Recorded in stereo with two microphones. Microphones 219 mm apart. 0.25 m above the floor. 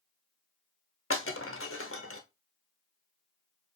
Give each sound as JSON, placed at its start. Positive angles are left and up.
{"t": 1.1, "sound": "breaking glass", "side_deg": 80, "distance_m": 0.9}